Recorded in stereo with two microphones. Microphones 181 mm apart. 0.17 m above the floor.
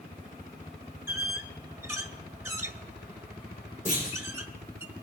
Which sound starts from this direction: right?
A clunk, at 3.9 s.